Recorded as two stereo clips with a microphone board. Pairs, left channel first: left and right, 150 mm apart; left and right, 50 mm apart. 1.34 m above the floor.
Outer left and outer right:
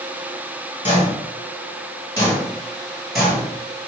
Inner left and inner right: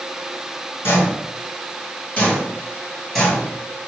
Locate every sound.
0.8 s footsteps: 40° left (ahead or behind), 1.7 m; by 3.9 s 15° right (ahead or behind), 1.5 m